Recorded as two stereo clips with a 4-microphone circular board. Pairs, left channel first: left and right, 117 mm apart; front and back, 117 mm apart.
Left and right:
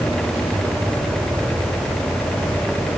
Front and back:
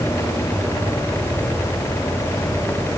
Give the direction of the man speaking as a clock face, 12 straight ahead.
No man speaking in this recording.